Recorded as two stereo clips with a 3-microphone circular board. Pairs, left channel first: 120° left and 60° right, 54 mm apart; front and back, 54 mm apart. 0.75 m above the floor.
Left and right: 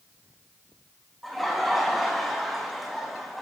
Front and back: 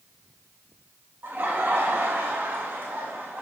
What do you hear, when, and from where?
1.2 s laughter: 150° right, 0.8 m